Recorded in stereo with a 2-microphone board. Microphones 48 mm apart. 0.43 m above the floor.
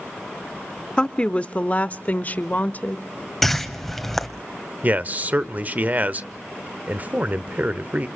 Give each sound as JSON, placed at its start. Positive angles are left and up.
{"t": 1.0, "sound": "a woman speaking", "side_deg": 20, "distance_m": 0.7}
{"t": 3.4, "sound": "a whoosh", "side_deg": 5, "distance_m": 1.6}
{"t": 4.8, "sound": "a man speaking", "side_deg": -35, "distance_m": 1.0}